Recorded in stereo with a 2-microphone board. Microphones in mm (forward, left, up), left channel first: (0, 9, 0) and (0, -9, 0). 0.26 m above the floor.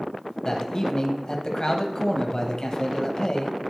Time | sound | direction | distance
0.5 | a man speaking | 35° left (ahead or behind) | 1.2 m